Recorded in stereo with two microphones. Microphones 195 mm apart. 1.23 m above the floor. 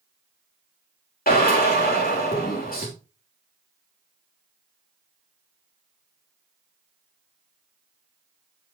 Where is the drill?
50° left (ahead or behind), 3 m.